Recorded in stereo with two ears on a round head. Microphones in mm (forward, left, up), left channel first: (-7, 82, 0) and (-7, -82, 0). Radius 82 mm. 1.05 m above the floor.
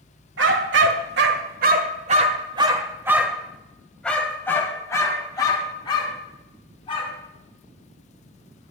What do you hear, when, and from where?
0.4 s a dog barking: 70° right (ahead or behind), 1.8 m; by 7.1 s 30° left (ahead or behind), 3.5 m